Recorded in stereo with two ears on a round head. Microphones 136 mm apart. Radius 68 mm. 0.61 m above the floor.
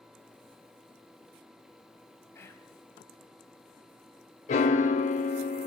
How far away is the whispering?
About 4 m.